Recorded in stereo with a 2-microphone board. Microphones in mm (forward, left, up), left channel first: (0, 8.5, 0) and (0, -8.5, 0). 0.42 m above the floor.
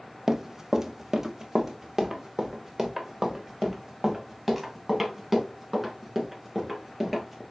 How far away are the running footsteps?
About 0.7 m.